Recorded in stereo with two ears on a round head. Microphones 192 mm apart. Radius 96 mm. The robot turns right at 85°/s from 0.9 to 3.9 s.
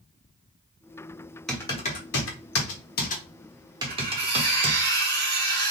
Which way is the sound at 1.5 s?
Centre (ahead or behind).